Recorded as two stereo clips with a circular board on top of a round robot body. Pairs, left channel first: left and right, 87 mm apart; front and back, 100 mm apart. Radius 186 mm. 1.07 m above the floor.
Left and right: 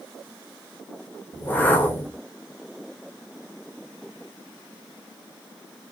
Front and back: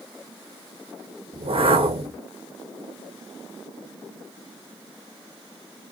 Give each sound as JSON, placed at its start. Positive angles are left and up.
{"t": 1.3, "sound": "a whoosh", "azimuth_deg": 160, "distance_m": 0.9}